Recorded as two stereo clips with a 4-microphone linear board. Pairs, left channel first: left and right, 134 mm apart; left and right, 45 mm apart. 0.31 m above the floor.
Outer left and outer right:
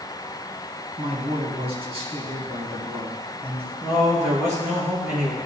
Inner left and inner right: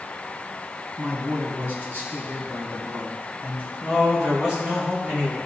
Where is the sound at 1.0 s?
45° right (ahead or behind), 2.5 m.